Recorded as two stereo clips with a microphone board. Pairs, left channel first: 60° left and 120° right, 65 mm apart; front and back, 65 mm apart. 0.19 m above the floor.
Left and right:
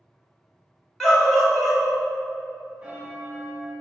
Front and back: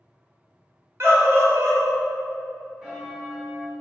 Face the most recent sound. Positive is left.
turn(degrees=-110)